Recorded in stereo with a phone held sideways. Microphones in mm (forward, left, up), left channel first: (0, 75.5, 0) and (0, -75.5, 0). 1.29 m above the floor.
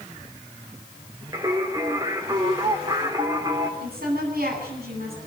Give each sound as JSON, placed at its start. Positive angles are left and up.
{"t": 1.3, "sound": "singing", "side_deg": -25, "distance_m": 3.0}
{"t": 3.8, "sound": "a woman speaking", "side_deg": -85, "distance_m": 9.5}